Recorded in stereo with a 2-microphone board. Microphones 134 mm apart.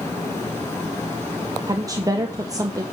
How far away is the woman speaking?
About 0.5 m.